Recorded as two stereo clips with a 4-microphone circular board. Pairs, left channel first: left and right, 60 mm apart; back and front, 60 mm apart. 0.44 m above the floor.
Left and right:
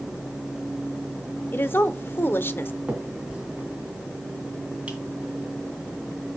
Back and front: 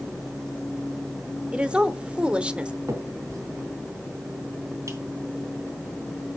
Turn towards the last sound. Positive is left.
turn(degrees=-20)